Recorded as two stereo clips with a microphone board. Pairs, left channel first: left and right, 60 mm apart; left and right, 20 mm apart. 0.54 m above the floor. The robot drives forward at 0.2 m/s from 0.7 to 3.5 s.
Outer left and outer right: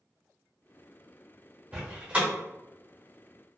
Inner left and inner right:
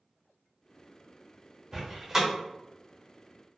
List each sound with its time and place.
1.7 s a door slam: 25° right (ahead or behind), 0.9 m; by 2.3 s 20° right (ahead or behind), 1.0 m